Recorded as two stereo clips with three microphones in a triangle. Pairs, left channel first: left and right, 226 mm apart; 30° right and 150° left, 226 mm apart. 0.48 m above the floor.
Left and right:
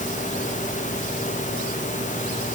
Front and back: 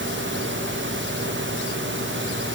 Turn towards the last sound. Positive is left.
No sound to turn to.